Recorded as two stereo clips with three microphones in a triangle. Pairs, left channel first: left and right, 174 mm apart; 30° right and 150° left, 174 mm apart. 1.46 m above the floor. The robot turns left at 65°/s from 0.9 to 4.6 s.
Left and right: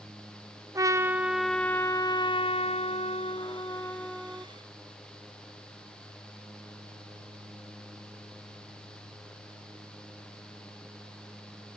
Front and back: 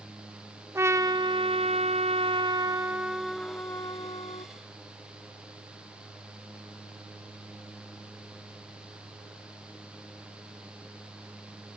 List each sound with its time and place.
0.8 s a trumpet: 145° right, 0.7 m; by 4.5 s 15° right, 0.7 m